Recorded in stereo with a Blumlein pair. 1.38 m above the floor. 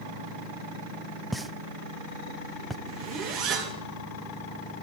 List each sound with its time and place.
1.3 s a pop: 5° right, 0.6 m
2.9 s a zipper: 40° right, 2 m